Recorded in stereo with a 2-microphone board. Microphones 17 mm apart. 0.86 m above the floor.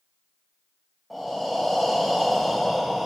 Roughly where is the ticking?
I don't hear ticking.